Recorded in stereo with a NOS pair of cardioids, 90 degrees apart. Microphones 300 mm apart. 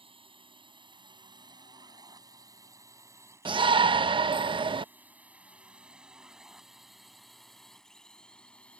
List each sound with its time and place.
0.0 s a drone: 15° right; by 8.8 s 5° left
3.5 s a shout: 15° right